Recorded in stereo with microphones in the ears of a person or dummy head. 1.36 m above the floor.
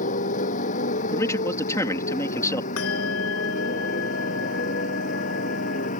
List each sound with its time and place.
0.0 s a motorcycle: 40° left (ahead or behind); by 6.0 s 45° left (ahead or behind)
1.1 s a man speaking: 15° left (ahead or behind)
2.8 s a bell: 75° left (ahead or behind)